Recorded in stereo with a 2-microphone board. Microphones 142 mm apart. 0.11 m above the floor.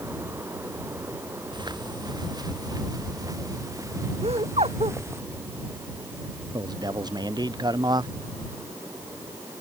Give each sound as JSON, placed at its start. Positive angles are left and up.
{"t": 1.5, "sound": "footsteps", "side_deg": -30}
{"t": 4.2, "sound": "laughter", "side_deg": -50}
{"t": 6.5, "sound": "a man speaking", "side_deg": -30}